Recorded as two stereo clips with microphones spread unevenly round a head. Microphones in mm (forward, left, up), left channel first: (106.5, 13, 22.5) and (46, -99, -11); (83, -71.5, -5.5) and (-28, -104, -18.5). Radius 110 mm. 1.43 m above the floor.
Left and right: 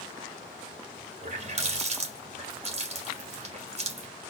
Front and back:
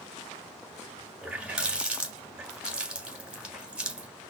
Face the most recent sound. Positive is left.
turn(degrees=-80)